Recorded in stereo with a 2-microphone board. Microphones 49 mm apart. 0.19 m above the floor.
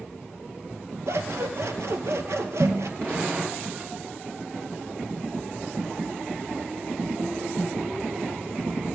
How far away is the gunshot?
About 8 m.